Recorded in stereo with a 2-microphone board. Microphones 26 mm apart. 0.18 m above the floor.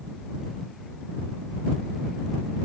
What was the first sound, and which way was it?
Only background noise.